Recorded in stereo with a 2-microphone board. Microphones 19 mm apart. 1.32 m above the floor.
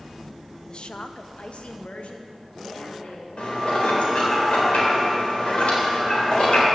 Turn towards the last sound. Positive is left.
turn(degrees=85)